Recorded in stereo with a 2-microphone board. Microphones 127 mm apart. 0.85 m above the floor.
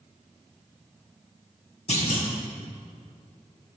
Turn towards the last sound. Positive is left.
turn(degrees=65)  # may be behind; listen again after turning